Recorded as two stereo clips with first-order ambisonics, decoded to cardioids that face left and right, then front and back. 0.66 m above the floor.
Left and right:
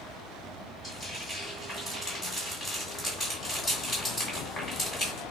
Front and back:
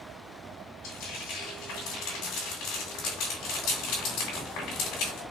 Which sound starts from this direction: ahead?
Frying, at 0.8 s.